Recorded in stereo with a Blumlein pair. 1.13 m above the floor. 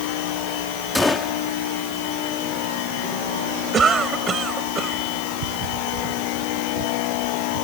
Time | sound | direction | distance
0.9 | a gunshot | straight ahead | ?
3.7 | a cough | 20° right | ?